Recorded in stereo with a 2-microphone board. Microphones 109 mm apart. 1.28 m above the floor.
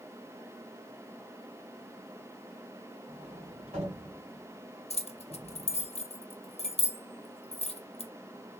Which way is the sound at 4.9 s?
65° left (ahead or behind).